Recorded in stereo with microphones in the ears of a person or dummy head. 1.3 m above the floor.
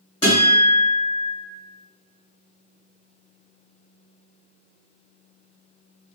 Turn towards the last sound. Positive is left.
turn(degrees=15)  # may be behind; listen again after turning